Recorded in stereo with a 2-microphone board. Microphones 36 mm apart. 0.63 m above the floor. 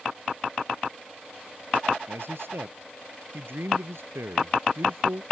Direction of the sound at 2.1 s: 75° right (ahead or behind).